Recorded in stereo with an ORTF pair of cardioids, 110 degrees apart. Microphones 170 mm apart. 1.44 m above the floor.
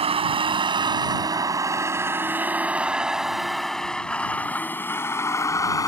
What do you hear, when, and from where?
0.0 s a vehicle: 35° right; by 5.9 s 20° left